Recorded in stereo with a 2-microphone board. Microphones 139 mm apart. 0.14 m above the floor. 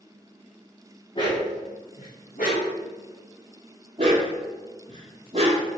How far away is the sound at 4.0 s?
About 1.9 m.